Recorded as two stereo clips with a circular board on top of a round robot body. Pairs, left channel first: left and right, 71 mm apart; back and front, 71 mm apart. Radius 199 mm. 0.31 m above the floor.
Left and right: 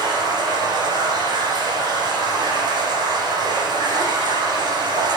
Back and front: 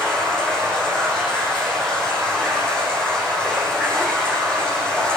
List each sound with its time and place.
0.0 s running water: 100° right, 9.5 m